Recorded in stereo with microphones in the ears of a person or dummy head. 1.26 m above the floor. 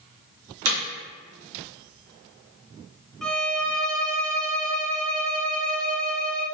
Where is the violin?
Centre (ahead or behind), 0.6 m.